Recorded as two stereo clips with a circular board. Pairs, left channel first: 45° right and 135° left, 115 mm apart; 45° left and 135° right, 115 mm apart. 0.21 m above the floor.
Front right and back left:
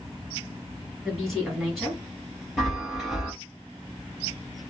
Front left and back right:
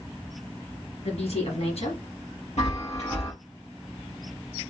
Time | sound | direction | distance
1.0 | a woman speaking | 45° left | 2.5 m
2.6 | a chime | 45° left | 3 m